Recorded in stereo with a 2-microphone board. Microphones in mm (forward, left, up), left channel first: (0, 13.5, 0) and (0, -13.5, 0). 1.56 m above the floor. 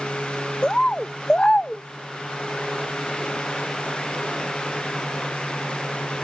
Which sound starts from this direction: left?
A bird, at 0.6 s.